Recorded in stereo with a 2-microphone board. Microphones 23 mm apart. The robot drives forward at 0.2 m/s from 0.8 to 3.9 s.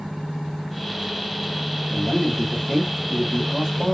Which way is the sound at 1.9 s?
5° left (ahead or behind).